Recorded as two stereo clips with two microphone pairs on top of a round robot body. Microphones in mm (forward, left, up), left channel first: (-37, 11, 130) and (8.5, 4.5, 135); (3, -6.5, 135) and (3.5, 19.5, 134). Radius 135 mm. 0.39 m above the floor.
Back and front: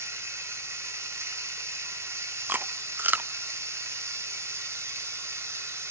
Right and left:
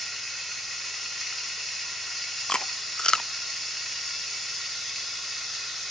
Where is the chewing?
45° right, 0.6 m.